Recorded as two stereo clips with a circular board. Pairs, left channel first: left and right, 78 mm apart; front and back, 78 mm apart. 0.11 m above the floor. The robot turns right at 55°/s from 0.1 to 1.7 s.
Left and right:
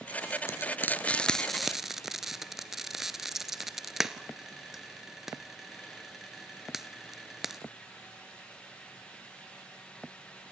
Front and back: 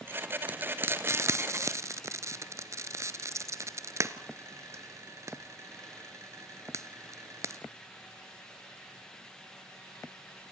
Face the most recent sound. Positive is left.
turn(degrees=-175)